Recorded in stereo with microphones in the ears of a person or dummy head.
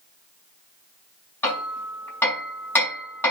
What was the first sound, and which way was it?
Hammering, 5° left (ahead or behind).